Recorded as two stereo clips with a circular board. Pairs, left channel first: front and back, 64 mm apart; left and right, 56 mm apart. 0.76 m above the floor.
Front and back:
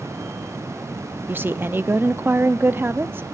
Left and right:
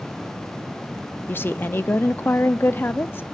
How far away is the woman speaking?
About 0.7 m.